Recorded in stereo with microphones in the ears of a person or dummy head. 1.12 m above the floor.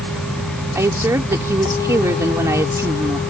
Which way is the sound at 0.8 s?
10° right (ahead or behind).